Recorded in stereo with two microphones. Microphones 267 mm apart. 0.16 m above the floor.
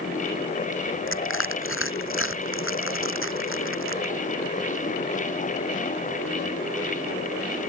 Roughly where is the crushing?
Left.